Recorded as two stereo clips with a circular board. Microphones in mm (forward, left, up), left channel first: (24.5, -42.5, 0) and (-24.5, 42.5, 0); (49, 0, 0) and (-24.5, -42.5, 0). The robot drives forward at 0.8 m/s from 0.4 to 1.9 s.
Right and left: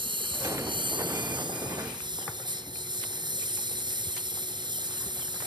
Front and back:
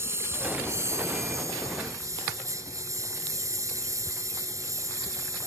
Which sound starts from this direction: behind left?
A lawn mower, at 0.0 s.